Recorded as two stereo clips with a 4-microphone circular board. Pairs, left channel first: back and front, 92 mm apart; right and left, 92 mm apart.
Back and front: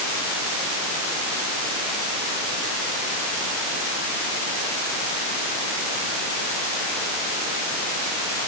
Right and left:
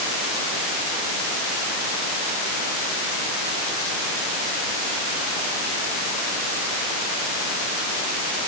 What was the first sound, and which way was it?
Only background noise.